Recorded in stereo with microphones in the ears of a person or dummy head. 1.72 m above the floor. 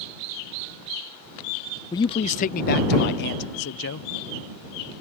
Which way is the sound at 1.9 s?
20° left (ahead or behind).